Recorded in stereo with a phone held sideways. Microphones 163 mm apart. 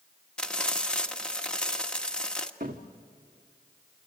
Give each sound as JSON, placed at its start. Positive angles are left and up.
{"t": 0.4, "sound": "frying", "side_deg": 5, "distance_m": 1.2}
{"t": 2.6, "sound": "a cupboard door", "side_deg": -60, "distance_m": 1.8}